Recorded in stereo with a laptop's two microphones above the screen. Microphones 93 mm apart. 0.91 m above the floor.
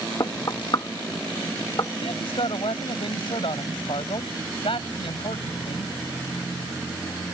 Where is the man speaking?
75° left (ahead or behind).